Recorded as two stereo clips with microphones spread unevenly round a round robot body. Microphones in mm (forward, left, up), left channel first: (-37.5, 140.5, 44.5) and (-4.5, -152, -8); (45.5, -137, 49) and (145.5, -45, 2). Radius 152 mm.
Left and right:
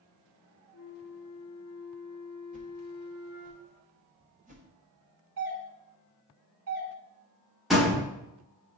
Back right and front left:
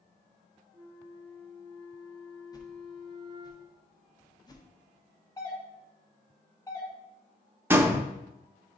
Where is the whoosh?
65° right, 1.1 m.